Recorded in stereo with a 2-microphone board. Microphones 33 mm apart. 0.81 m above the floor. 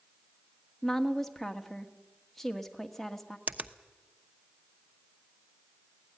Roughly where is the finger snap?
Right.